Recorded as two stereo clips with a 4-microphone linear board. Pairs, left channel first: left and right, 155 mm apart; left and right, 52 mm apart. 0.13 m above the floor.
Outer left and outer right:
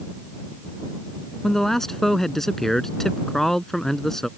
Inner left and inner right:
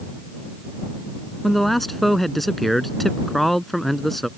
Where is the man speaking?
5° left (ahead or behind).